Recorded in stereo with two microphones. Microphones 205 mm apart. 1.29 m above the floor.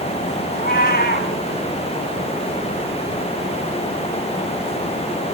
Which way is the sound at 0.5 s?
50° left (ahead or behind).